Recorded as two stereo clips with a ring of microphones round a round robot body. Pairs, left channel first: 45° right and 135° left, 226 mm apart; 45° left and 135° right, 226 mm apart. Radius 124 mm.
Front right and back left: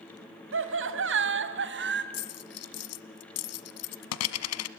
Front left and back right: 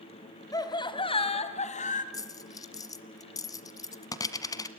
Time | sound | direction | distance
0.5 | laughter | 120° left | 2.5 m
2.1 | a dropped coin | 30° right | 1.2 m